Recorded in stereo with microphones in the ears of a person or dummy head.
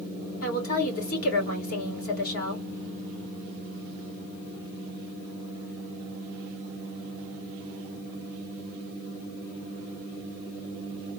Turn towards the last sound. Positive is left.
turn(degrees=55)  # may be behind; listen again after turning